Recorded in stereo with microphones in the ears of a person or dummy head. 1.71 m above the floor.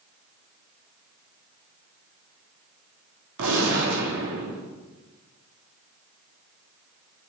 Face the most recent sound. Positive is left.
turn(degrees=-70)  # may be behind; listen again after turning